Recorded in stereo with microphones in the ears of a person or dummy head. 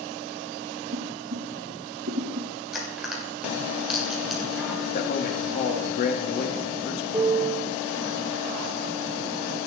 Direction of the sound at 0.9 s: 55° right (ahead or behind).